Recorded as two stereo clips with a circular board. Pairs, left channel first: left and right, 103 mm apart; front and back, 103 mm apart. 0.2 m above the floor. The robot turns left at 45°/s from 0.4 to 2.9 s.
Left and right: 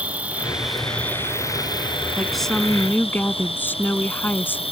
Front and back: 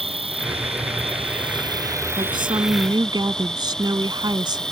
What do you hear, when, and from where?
0.0 s an insect: 165° right; by 4.7 s 85° left
2.2 s a woman speaking: 170° right; by 4.6 s 155° left